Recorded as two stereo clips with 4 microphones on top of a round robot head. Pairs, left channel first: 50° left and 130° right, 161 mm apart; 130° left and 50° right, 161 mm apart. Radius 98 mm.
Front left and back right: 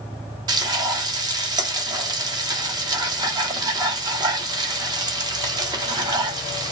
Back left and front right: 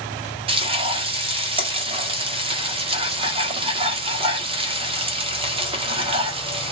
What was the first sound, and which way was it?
Frying, 80° right.